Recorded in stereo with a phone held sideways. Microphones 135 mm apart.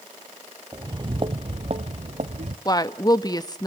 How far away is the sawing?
No sawing in this recording.